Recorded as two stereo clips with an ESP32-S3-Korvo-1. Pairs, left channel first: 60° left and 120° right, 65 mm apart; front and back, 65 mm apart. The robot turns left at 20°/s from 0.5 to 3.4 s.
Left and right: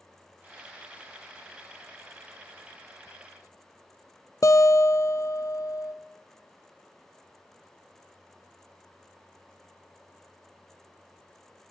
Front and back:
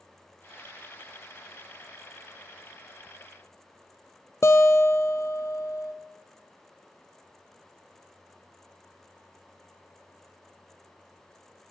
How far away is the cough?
I don't hear a cough.